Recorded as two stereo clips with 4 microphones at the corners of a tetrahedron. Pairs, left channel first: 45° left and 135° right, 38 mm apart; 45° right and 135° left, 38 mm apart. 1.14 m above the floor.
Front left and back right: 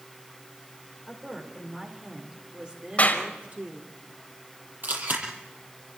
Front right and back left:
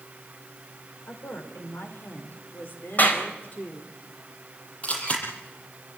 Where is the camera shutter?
100° right, 8 m.